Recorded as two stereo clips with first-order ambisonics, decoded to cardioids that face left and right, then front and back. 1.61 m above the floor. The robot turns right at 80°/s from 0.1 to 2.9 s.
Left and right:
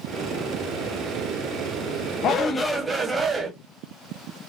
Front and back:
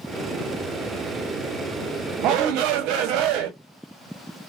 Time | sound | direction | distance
2.2 | a shout | 140° left | 0.9 m